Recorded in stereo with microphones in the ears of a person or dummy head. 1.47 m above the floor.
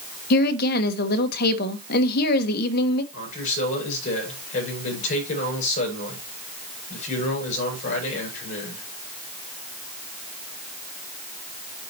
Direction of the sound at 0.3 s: 55° left (ahead or behind).